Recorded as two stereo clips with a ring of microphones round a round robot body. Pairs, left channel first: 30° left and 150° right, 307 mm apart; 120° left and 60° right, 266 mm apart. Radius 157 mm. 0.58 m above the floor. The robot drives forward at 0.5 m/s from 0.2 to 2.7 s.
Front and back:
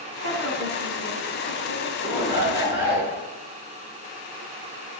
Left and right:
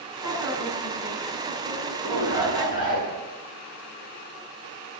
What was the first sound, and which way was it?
A woman speaking, 160° left.